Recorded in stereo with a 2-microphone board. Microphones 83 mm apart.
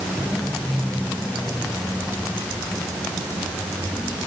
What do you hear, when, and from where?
Only background noise.